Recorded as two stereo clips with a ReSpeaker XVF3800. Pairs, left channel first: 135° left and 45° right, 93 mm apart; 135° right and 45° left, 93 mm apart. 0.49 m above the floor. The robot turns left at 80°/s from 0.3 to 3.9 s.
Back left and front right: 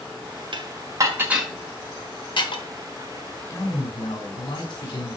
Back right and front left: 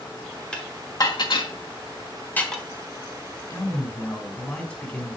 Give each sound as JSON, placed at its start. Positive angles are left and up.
{"t": 0.5, "sound": "dishes clattering", "azimuth_deg": -55, "distance_m": 1.3}
{"t": 3.5, "sound": "a man speaking", "azimuth_deg": -170, "distance_m": 2.5}